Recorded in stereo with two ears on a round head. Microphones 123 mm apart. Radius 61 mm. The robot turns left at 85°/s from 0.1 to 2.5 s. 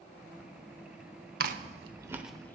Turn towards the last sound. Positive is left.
turn(degrees=15)  # may be behind; listen again after turning